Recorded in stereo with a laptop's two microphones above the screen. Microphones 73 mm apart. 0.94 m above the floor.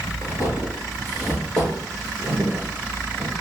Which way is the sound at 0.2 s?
50° left (ahead or behind).